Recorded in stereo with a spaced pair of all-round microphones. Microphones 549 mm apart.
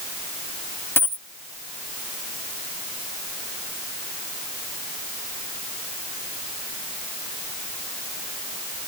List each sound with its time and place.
1.0 s a dropped coin: 5° left (ahead or behind)